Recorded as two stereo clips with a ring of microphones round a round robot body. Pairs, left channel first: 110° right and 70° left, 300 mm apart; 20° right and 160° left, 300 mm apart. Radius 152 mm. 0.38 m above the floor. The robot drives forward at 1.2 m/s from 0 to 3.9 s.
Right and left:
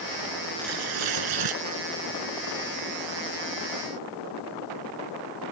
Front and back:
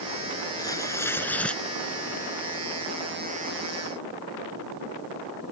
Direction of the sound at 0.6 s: 55° left.